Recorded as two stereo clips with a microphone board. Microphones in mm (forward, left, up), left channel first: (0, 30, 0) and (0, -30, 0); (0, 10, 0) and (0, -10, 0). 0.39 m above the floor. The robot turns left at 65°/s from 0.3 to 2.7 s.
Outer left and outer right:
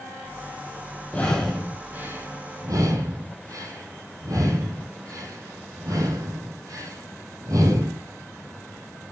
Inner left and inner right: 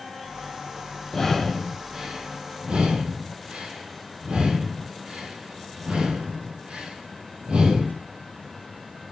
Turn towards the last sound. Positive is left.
turn(degrees=-75)  # may be behind; listen again after turning